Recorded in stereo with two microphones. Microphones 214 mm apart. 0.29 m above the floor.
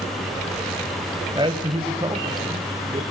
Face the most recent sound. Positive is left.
turn(degrees=-20)  # may be behind; listen again after turning